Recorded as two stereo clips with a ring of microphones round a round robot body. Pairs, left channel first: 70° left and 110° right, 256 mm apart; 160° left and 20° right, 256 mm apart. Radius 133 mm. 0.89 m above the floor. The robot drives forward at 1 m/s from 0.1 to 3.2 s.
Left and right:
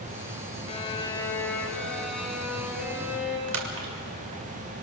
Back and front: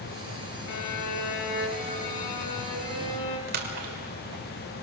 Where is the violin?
135° left, 1.4 m; by 3.4 s 165° left, 3.5 m.